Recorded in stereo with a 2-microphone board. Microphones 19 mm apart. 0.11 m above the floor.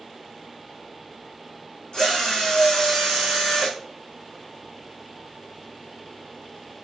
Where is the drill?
40° left (ahead or behind), 3.5 m.